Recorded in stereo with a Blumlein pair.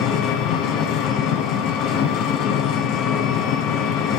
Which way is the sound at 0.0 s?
35° left.